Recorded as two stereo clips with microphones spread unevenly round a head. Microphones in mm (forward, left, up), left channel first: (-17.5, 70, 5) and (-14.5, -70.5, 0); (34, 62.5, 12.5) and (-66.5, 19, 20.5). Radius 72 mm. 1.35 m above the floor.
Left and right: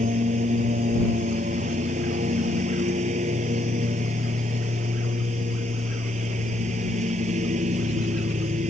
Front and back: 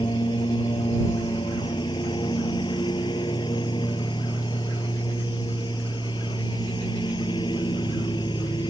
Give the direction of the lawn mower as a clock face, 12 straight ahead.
1 o'clock.